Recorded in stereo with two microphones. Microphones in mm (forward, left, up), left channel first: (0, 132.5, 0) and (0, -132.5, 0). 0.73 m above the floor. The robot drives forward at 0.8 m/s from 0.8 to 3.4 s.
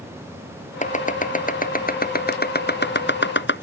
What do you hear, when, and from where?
0.8 s chopping: 30° left (ahead or behind); by 3.6 s 45° left (ahead or behind)